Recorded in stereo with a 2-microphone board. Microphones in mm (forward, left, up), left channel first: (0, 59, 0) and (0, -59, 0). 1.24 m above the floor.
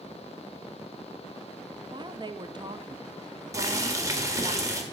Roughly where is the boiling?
Right.